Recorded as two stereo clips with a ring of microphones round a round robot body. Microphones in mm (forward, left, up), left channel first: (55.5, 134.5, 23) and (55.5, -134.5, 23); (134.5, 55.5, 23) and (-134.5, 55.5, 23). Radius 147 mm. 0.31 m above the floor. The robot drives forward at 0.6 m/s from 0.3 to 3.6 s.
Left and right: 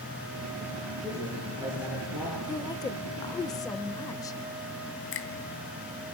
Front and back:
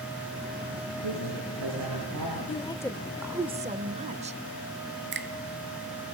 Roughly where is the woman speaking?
Ahead left.